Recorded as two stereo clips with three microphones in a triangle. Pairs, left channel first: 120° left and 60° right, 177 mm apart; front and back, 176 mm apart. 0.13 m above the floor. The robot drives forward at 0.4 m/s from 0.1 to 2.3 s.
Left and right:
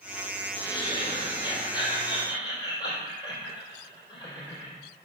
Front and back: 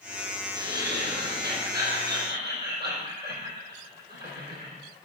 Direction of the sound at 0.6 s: 175° right.